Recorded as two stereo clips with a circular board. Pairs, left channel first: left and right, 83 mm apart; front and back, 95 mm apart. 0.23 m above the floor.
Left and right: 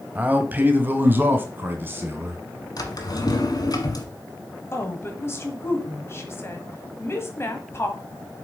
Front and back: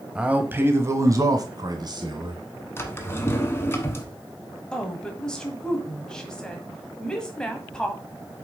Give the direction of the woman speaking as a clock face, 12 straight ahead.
9 o'clock.